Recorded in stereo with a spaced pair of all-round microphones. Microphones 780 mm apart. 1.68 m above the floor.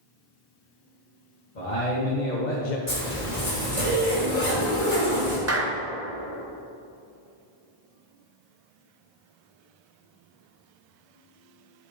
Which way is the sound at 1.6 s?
65° left (ahead or behind).